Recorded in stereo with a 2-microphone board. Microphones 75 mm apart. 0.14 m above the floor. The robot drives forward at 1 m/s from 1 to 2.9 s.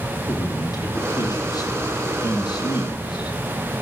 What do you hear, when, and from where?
0.3 s a man speaking: 60° left (ahead or behind), 5 m; by 3.4 s 75° left (ahead or behind), 4.5 m